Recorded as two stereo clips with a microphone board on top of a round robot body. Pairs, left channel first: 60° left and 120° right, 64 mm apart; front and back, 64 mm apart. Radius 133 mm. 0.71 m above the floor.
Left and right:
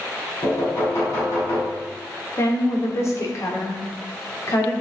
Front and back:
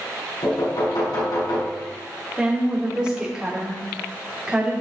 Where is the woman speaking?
100° left, 3 m.